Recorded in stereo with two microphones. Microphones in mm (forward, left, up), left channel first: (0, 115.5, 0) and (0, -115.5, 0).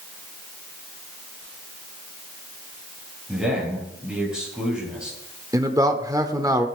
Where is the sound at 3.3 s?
5° right (ahead or behind), 9 m.